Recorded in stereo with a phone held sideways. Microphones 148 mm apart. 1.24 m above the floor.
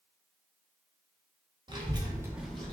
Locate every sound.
1.7 s a child speaking: 30° right (ahead or behind), 0.9 m; by 2.7 s 10° left (ahead or behind), 0.7 m